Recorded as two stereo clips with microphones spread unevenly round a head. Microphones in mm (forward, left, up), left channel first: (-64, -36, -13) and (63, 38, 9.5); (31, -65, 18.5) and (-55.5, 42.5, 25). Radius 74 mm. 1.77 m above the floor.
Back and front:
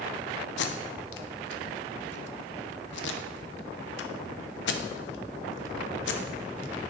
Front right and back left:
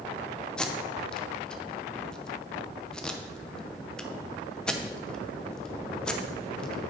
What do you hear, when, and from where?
0.6 s tape being pulled: 135° right, 0.7 m